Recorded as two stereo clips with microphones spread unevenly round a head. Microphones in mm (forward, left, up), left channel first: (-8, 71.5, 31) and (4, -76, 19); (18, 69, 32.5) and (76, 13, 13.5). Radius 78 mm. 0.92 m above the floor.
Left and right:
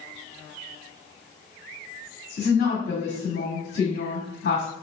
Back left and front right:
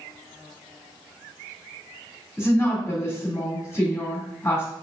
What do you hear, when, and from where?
2.4 s a woman speaking: 75° left, 2.0 m